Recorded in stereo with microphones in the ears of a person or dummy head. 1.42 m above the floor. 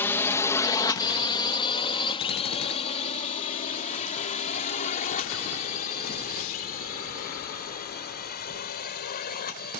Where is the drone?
10° left (ahead or behind); by 9.8 s 50° left (ahead or behind).